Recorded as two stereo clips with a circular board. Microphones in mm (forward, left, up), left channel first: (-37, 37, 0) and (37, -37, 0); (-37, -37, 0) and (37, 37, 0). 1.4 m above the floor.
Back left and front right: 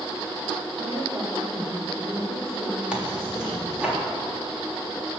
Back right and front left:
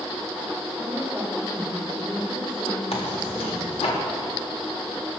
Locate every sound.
0.8 s a woman speaking: 40° right, 4.5 m
2.9 s tearing paper: 125° right, 3.5 m